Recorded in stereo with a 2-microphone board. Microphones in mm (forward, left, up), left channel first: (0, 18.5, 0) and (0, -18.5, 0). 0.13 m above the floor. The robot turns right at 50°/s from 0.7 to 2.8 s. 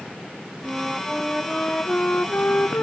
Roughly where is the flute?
Ahead.